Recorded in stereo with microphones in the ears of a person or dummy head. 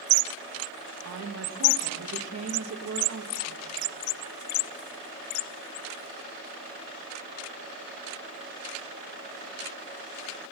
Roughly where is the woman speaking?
Right.